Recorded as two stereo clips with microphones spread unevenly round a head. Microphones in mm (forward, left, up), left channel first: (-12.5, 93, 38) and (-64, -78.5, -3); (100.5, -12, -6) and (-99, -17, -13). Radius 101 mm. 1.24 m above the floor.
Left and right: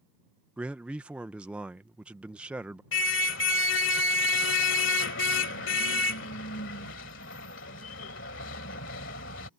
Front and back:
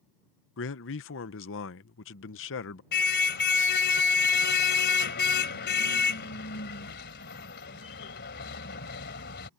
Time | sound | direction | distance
0.6 | a man speaking | 25° right | ?
2.9 | a car horn | 40° left | ?